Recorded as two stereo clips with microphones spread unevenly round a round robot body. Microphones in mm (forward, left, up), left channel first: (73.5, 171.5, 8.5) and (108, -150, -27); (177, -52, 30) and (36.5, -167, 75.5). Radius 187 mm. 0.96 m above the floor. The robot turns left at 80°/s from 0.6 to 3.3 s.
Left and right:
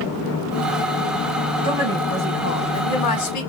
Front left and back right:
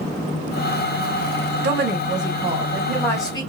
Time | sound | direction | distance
1.6 | a woman speaking | 145° right | 0.7 m